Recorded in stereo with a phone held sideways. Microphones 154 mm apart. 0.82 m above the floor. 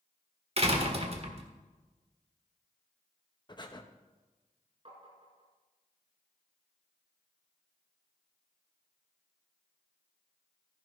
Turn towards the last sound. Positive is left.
turn(degrees=-40)  # may be behind; listen again after turning